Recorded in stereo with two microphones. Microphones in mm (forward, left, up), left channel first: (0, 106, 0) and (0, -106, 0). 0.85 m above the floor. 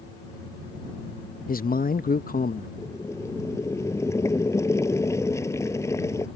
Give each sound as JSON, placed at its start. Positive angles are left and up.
{"t": 1.5, "sound": "a man speaking", "side_deg": 45}
{"t": 2.8, "sound": "boiling", "side_deg": 15}